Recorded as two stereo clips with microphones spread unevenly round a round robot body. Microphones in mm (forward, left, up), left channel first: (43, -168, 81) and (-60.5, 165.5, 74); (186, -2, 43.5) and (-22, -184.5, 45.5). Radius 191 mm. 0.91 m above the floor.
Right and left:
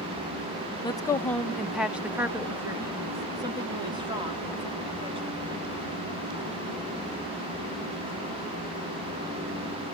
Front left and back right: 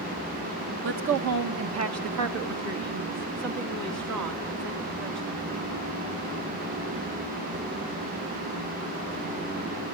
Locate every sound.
0.8 s a woman speaking: 145° right, 0.9 m; by 5.5 s straight behind, 3.5 m